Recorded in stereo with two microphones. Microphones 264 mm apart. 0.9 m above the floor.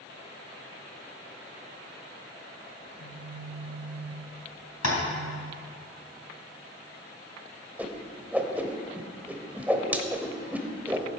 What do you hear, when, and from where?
2.8 s a phone buzzing: 65° left (ahead or behind), 1.9 m
4.8 s tapping: 80° left, 3 m
7.8 s a whoosh: 5° right (ahead or behind), 1.0 m